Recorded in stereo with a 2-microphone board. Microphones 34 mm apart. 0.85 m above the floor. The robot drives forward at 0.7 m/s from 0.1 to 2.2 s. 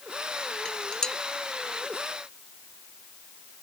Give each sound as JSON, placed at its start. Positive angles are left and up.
{"t": 0.7, "sound": "dishes clattering", "side_deg": 20}